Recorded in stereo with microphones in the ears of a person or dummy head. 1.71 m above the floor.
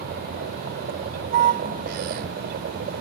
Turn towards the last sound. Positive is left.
turn(degrees=-55)  # may be behind; listen again after turning